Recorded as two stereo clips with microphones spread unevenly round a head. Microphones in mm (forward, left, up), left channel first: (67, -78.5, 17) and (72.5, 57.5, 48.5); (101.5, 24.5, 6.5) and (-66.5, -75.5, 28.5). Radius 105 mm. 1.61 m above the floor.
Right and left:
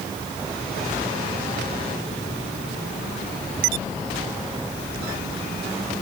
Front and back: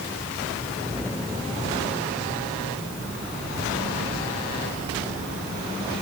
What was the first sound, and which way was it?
Only background noise.